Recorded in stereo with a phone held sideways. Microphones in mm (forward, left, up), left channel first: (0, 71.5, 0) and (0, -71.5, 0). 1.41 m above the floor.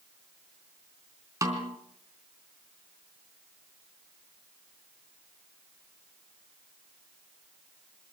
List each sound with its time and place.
1.4 s a snare drum: 20° right (ahead or behind), 3.5 m